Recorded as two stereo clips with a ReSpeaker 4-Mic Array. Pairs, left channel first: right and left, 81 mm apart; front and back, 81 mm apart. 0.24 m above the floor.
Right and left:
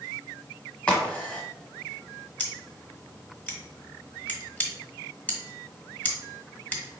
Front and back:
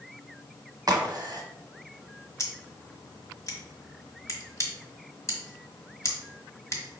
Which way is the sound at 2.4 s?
30° right.